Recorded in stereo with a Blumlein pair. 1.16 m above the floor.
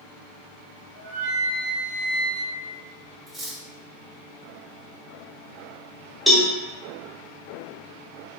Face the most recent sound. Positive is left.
turn(degrees=0)